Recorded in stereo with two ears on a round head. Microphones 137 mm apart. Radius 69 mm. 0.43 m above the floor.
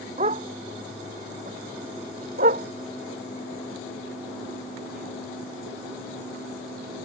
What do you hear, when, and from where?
0.2 s a dog barking: 45° right (ahead or behind); by 7.1 s 65° right (ahead or behind)